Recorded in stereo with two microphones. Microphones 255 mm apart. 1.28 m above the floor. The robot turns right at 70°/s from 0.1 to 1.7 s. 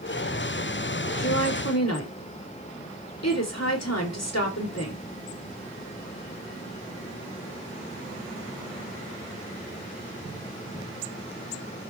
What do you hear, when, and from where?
1.2 s a woman speaking: 55° left, 4 m; by 5.0 s 90° left, 4 m